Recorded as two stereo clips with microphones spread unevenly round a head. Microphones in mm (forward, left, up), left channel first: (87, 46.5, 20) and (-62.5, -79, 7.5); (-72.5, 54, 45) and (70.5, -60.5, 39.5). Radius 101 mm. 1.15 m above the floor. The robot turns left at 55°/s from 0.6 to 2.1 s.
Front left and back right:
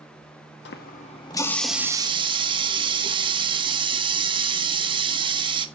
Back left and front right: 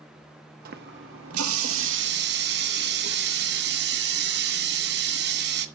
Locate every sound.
0.7 s a running tap: 5° left, 1.1 m; by 5.7 s 75° right, 1.1 m